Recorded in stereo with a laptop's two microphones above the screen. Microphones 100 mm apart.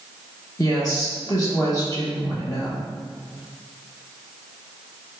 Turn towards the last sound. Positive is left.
turn(degrees=35)  # may be behind; listen again after turning